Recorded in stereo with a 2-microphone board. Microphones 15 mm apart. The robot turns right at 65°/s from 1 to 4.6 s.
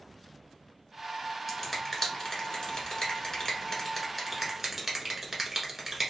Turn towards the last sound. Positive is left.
turn(degrees=-15)  # may be behind; listen again after turning